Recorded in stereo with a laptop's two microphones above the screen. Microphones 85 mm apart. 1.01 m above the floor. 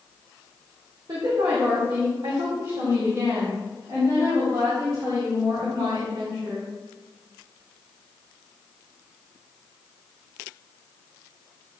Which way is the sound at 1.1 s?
60° right (ahead or behind).